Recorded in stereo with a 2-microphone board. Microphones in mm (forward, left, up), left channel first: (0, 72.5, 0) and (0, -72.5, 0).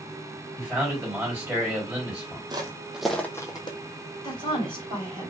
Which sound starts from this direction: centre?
A man speaking, at 0.6 s.